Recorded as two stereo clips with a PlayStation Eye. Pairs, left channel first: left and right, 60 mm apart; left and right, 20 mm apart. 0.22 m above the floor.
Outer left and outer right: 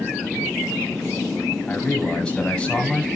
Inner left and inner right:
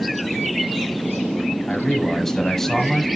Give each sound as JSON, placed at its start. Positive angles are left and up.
{"t": 1.7, "sound": "a man speaking", "side_deg": 15, "distance_m": 1.3}